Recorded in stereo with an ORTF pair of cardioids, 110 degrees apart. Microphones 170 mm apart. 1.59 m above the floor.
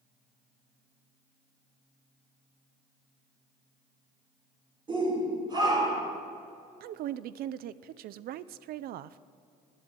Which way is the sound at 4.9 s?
30° right.